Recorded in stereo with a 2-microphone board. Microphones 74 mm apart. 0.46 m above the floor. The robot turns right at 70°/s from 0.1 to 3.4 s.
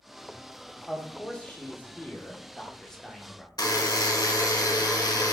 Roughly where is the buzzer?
Left.